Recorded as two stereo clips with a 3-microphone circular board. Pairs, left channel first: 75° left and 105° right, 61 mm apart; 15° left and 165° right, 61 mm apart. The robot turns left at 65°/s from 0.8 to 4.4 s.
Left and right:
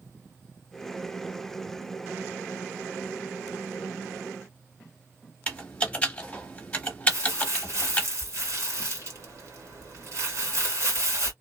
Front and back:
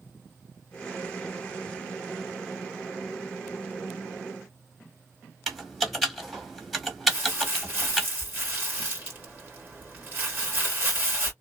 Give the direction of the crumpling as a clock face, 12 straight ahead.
4 o'clock.